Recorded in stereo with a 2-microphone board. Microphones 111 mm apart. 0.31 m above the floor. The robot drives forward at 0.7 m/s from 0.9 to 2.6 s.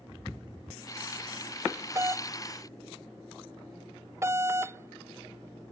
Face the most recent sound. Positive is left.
turn(degrees=-25)  # may be behind; listen again after turning